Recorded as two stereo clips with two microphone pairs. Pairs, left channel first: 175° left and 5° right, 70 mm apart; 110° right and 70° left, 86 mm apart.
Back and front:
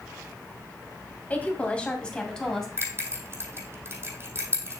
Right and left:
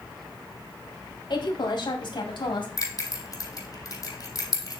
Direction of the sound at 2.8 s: 65° right.